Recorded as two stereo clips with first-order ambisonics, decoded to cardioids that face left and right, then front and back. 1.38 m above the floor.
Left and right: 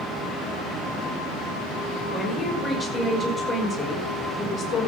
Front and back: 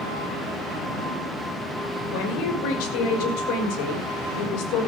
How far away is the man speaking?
About 6 m.